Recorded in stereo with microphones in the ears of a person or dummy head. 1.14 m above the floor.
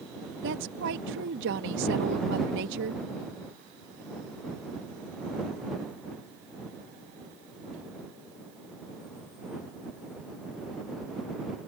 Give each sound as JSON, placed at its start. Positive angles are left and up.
{"t": 0.4, "sound": "a woman speaking", "side_deg": -65}